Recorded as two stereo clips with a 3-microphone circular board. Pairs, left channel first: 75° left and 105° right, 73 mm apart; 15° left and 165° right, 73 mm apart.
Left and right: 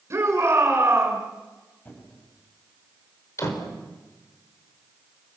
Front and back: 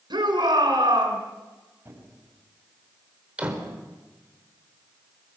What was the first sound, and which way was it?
A shout, 155° right.